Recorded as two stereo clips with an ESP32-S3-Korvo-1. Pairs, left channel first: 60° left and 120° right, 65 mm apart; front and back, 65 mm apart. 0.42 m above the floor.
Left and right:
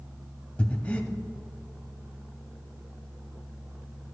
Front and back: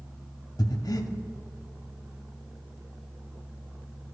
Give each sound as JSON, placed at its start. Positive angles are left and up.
{"t": 0.6, "sound": "breathing", "azimuth_deg": -10, "distance_m": 0.5}